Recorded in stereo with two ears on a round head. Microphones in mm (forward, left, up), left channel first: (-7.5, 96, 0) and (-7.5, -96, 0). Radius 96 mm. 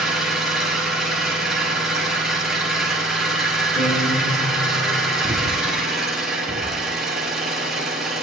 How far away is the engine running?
About 3 m.